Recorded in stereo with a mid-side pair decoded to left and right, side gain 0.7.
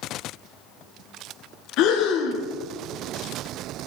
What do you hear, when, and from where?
1.8 s breathing: 60° left, 1.2 m